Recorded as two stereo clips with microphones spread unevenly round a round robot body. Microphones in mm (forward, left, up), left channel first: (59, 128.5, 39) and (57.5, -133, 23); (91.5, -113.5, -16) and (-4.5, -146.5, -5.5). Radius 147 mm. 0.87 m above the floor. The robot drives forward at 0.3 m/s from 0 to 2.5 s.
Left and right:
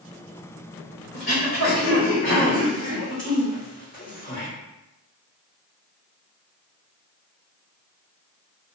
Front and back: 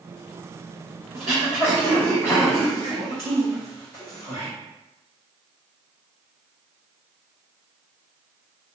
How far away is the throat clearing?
About 1.2 m.